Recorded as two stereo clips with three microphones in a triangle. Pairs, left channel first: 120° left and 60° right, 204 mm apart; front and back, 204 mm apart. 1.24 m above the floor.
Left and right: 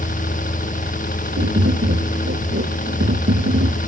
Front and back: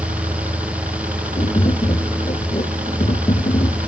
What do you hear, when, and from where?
0.0 s a helicopter: 140° left
1.4 s tapping: 60° right